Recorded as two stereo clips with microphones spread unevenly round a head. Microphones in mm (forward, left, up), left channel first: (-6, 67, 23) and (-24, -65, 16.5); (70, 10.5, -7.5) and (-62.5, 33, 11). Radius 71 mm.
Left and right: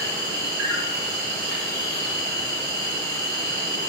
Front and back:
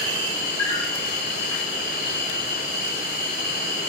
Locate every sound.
0.0 s an insect: 75° right, 3 m